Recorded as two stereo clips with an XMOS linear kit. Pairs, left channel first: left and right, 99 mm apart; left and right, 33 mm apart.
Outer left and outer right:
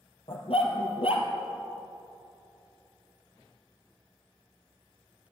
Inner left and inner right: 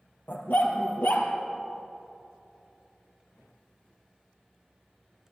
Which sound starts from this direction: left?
A dog barking, at 0.3 s.